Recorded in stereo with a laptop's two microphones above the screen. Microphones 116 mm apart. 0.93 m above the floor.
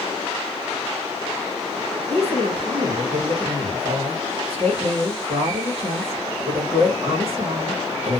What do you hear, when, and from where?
2.1 s a woman speaking: 55° right (ahead or behind), 1.2 m